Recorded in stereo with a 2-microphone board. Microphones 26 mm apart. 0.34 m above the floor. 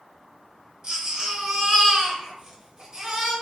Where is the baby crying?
30° right (ahead or behind), 0.8 m.